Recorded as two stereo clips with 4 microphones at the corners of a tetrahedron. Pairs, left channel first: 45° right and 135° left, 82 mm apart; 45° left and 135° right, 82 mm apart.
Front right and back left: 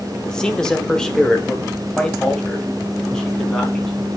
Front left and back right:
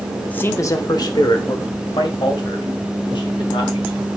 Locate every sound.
0.3 s a man speaking: 15° left, 0.7 m; by 4.1 s 40° left, 4.5 m